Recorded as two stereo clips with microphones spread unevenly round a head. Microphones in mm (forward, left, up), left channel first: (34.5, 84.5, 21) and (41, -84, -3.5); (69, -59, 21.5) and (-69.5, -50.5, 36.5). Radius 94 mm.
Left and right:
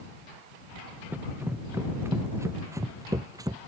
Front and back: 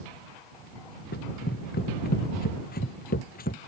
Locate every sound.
1.1 s running footsteps: 5° right; by 3.6 s 20° right